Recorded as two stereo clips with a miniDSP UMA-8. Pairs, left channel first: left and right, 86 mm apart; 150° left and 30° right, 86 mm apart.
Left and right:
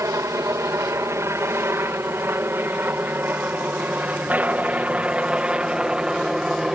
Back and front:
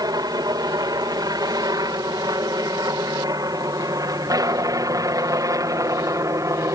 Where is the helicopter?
50° right; by 6.8 s 10° right.